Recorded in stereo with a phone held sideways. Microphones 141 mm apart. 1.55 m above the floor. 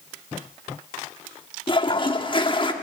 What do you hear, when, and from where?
1.7 s a toilet flushing: 35° left (ahead or behind), 1.4 m